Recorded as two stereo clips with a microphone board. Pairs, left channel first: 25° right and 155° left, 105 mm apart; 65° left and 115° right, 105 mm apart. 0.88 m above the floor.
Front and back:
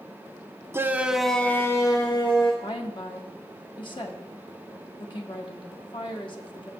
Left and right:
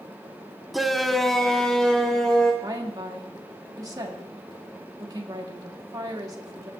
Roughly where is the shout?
Behind.